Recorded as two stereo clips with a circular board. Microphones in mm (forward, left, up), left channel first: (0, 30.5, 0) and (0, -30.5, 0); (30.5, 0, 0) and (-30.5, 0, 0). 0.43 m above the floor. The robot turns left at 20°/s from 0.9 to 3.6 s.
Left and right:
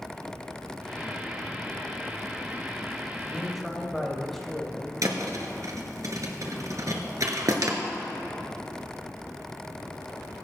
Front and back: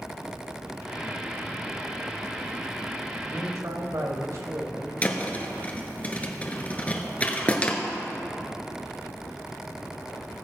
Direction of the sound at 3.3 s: Straight behind.